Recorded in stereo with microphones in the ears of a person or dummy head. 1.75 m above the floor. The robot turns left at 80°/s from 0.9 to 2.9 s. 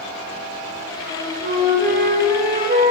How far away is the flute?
About 1.4 m.